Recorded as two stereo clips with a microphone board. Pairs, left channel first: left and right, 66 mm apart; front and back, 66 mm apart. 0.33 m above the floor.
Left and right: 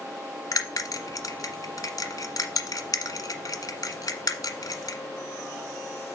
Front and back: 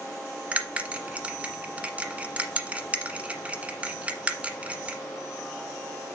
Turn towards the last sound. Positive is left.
turn(degrees=110)